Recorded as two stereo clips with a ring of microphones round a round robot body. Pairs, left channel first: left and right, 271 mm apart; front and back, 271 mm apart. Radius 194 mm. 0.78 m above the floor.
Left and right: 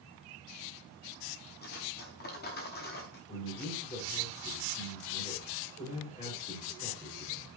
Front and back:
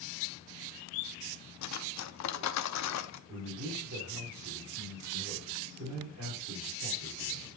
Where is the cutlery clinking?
25° left, 0.8 m.